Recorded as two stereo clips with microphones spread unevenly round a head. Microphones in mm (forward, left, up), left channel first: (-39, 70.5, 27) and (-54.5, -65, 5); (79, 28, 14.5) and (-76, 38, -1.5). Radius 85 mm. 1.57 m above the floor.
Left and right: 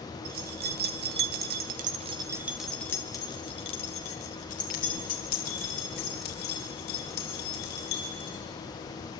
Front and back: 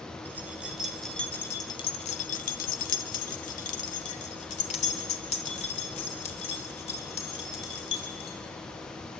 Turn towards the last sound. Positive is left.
turn(degrees=50)